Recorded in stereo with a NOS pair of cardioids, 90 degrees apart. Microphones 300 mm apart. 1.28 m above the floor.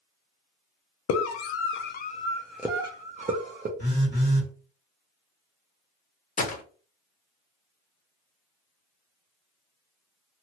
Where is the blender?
No blender in this recording.